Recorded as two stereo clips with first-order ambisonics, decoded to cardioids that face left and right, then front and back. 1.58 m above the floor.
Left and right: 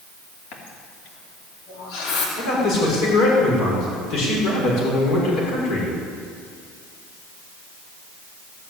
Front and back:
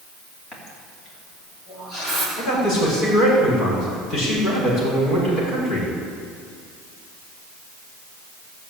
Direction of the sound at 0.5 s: 70° left.